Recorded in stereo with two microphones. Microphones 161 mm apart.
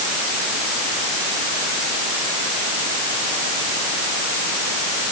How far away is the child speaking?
I don't hear a child speaking.